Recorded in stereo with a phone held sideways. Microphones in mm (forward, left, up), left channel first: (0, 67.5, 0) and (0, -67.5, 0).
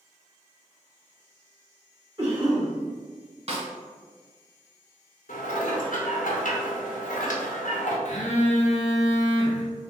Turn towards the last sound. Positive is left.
turn(degrees=65)  # may be behind; listen again after turning